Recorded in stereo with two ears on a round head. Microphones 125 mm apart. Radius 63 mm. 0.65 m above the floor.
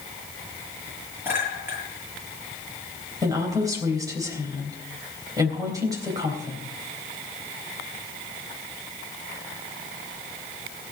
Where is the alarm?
I don't hear an alarm.